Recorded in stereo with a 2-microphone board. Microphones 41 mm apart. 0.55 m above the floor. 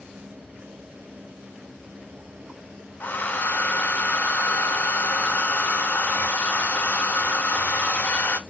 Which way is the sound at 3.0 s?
45° left (ahead or behind).